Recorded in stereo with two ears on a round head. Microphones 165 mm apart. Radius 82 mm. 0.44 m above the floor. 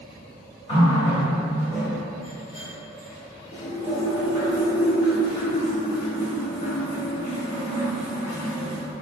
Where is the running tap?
25° left (ahead or behind), 0.9 m.